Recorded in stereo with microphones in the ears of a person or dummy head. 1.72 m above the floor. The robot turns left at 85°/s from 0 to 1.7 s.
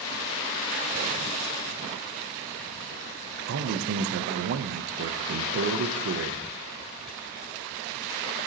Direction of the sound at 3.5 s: 55° right (ahead or behind).